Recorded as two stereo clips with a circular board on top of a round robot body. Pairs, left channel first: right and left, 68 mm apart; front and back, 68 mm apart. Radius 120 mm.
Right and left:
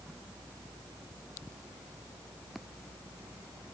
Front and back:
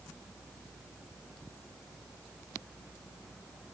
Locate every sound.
Only background noise.